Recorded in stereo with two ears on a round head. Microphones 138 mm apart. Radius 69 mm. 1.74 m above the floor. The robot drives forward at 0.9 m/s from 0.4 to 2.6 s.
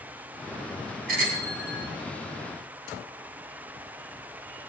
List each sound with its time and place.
1.1 s a bicycle bell: 65° right (ahead or behind), 10 m